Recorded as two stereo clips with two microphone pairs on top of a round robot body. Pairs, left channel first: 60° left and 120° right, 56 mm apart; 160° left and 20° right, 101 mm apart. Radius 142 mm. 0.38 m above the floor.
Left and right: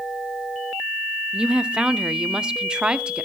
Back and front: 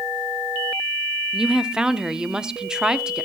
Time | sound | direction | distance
1.3 | a woman speaking | 115° right | 0.8 m